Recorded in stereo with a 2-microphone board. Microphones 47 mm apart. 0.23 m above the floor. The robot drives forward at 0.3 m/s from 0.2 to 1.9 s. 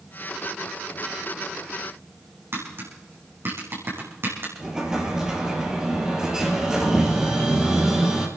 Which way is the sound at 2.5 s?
50° right (ahead or behind).